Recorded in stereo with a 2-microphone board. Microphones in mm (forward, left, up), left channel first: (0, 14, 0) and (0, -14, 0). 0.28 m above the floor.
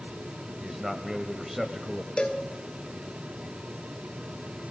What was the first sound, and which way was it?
A man speaking, 15° right (ahead or behind).